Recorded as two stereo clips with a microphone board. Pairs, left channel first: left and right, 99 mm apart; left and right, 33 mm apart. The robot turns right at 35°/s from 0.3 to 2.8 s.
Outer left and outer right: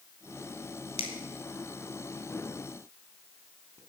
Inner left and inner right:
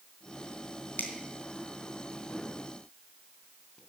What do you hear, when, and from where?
1.0 s a finger snap: 75° left (ahead or behind), 3 m; by 3.8 s 30° left (ahead or behind), 3 m